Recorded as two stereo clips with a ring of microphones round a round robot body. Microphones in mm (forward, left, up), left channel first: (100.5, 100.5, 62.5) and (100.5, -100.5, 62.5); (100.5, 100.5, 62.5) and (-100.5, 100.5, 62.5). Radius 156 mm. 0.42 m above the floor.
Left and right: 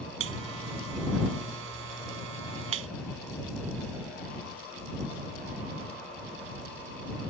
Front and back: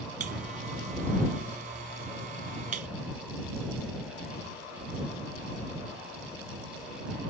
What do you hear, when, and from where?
0.2 s a buzzer: 120° right